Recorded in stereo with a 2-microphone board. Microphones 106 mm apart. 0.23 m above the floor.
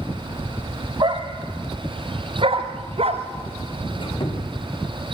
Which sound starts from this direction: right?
A dog barking, at 1.0 s.